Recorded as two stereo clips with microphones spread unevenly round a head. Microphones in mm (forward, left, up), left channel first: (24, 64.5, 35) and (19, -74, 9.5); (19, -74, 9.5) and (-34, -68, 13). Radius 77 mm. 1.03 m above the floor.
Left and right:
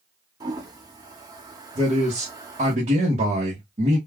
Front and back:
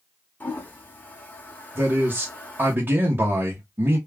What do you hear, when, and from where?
0.4 s a toilet flushing: 30° right, 0.7 m
1.8 s a man speaking: 140° right, 1.0 m